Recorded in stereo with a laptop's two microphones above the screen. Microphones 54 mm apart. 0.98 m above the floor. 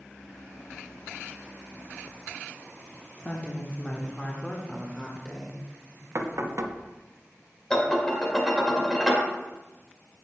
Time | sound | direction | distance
3.2 | a woman speaking | 30° left (ahead or behind) | 0.9 m
6.2 | knocking | 65° right (ahead or behind) | 0.7 m
7.7 | dishes clattering | 10° left (ahead or behind) | 2 m